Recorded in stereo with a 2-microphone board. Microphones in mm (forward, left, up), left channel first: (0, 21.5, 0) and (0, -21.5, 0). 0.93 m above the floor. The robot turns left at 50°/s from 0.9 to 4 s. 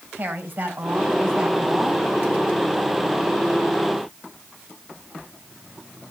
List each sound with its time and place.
0.1 s a woman speaking: 135° right, 4.5 m; by 2.1 s 165° left, 4.5 m